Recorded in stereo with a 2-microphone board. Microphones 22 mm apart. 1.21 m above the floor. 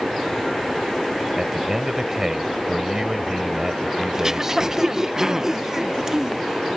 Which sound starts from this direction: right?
Throat clearing, at 4.1 s.